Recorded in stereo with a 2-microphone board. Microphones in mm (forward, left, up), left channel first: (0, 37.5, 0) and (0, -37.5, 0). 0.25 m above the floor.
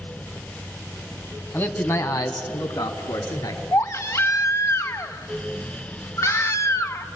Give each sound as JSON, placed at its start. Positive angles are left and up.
{"t": 1.5, "sound": "a man speaking", "side_deg": 25, "distance_m": 1.8}
{"t": 3.7, "sound": "a baby crying", "side_deg": 40, "distance_m": 1.1}